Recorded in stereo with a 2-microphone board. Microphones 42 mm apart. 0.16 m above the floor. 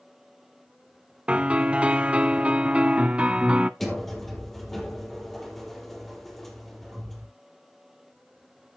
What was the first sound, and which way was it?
A piano, 30° right (ahead or behind).